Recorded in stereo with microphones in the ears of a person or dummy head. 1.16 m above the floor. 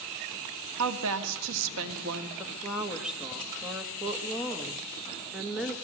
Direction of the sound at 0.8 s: 75° right (ahead or behind).